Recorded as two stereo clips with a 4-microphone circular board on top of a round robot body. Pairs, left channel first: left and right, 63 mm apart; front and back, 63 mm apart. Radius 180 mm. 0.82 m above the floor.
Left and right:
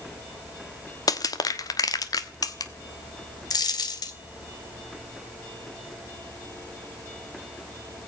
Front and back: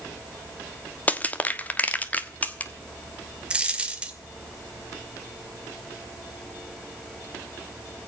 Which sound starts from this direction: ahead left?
Crushing, at 1.1 s.